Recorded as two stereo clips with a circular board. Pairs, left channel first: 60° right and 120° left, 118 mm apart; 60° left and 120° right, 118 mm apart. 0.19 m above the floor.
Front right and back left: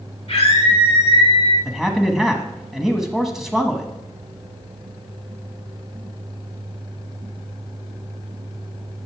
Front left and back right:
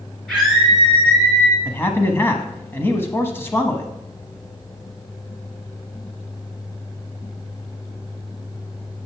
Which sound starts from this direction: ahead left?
A man speaking, at 1.6 s.